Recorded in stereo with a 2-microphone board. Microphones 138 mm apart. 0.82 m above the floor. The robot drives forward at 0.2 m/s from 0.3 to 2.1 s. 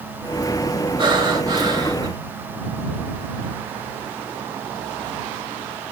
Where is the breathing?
35° right (ahead or behind), 0.7 m; by 2.1 s 30° right (ahead or behind), 0.7 m.